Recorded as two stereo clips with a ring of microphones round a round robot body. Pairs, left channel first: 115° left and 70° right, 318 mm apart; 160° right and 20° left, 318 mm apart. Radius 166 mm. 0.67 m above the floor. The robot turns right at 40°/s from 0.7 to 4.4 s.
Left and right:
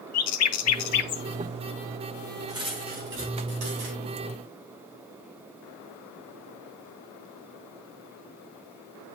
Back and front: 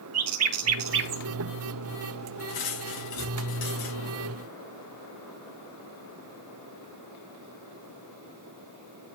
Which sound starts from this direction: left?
A bird, at 0.1 s.